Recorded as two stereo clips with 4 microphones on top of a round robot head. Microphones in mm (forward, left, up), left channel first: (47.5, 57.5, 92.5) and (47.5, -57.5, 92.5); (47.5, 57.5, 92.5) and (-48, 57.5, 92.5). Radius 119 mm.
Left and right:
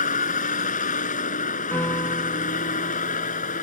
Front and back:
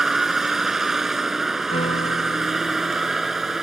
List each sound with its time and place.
0.0 s a vehicle: 95° left
1.7 s a piano: 20° left